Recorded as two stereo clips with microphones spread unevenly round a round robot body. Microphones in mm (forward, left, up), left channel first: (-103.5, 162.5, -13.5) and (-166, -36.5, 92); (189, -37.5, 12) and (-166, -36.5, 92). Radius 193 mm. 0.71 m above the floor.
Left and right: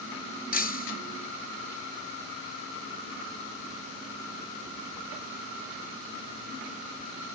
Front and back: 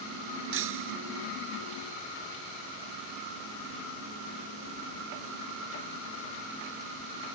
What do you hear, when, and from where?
0.5 s breaking glass: 120° left